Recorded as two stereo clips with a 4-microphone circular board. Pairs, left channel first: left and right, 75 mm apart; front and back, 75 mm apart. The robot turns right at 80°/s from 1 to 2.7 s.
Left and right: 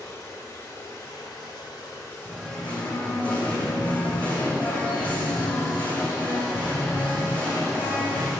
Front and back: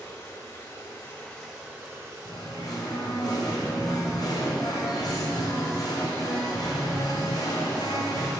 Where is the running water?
50° left, 1.8 m; by 8.4 s 175° right, 1.8 m.